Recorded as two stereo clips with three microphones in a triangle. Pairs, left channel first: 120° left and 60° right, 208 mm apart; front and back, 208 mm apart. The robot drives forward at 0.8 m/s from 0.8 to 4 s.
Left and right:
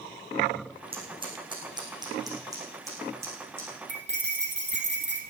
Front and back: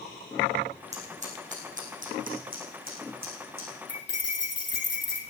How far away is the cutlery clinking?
About 3.5 m.